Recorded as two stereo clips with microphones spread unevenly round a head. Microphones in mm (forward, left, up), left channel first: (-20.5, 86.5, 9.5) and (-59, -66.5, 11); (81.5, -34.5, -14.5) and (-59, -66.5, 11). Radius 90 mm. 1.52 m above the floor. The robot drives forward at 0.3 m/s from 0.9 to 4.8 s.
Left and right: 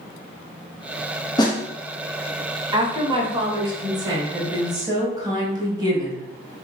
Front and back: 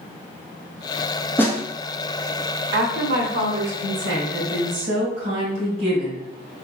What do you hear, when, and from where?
1.4 s a snare drum: 95° left, 0.8 m; by 1.6 s 105° left, 0.8 m
2.7 s a woman speaking: 165° right, 1.1 m; by 6.2 s 170° right, 1.7 m